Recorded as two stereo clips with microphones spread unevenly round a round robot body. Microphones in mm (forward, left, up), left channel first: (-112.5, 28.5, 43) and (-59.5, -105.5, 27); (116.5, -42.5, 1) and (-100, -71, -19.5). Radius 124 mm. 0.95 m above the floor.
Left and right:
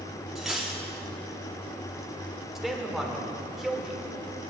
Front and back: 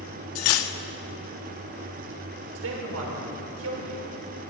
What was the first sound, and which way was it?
Cutlery clinking, 25° left.